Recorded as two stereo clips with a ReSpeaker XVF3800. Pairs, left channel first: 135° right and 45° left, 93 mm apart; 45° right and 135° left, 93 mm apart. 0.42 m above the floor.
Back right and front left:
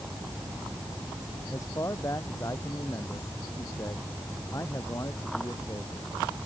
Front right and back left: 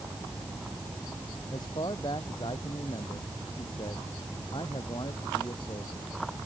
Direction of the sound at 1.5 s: 80° right.